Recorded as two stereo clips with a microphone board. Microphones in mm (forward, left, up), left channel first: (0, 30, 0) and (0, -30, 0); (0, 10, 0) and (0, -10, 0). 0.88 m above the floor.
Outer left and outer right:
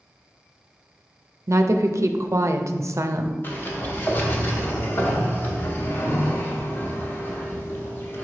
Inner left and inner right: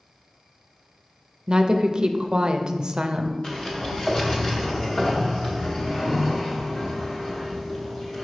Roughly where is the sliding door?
Left.